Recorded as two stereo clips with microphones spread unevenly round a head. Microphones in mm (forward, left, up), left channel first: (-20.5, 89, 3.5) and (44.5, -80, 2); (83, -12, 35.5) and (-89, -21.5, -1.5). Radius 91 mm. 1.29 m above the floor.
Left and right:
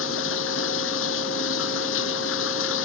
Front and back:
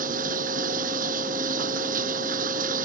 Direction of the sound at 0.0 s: 135° left.